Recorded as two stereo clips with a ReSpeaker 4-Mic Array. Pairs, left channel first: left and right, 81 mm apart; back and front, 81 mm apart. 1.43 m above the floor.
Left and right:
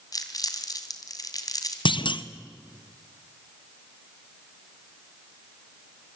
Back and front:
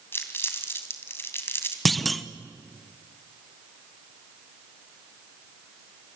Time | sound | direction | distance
0.1 | crumpling | 120° left | 2.5 m
1.9 | a clunk | 90° left | 1.0 m